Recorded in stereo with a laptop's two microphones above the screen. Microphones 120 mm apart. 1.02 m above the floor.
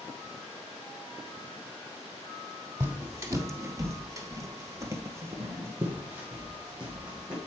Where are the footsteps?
20° right (ahead or behind), 1.8 m; by 7.4 s 10° right (ahead or behind), 2.5 m.